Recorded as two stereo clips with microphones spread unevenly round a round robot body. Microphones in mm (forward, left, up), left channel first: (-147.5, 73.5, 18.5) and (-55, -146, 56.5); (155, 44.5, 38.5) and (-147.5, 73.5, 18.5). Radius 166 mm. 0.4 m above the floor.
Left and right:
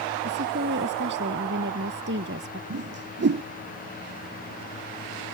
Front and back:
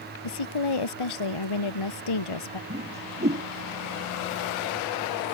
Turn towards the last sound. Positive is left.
turn(degrees=-110)